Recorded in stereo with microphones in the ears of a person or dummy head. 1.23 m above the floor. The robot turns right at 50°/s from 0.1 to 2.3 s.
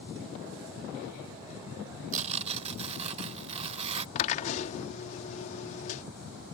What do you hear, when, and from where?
2.1 s tearing paper: 45° right (ahead or behind); by 4.0 s 35° right (ahead or behind)
4.2 s a drill: 45° left (ahead or behind)